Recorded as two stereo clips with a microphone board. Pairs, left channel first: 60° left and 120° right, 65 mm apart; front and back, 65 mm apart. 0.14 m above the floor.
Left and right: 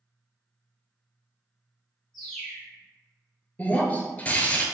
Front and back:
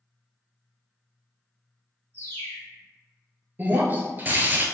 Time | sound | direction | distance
2.1 | a bird | 30° right | 1.5 m
3.6 | breaking glass | 125° left | 0.5 m